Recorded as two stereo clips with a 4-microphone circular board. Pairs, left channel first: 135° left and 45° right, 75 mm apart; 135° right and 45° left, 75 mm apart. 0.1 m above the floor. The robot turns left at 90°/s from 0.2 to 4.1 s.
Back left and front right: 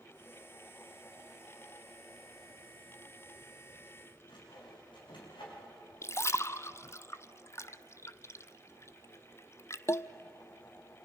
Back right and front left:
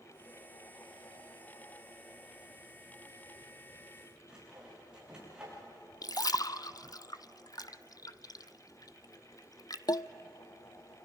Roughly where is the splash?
Behind.